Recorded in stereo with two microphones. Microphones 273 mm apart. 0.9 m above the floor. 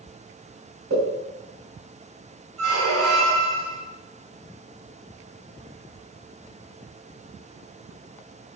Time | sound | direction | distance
0.9 | a pop | 55° right (ahead or behind) | 1.9 m
2.6 | a squeak | 70° right (ahead or behind) | 2.0 m